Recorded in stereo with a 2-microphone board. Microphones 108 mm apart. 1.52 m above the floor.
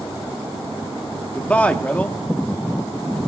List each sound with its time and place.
1.4 s a man speaking: 15° left (ahead or behind), 0.7 m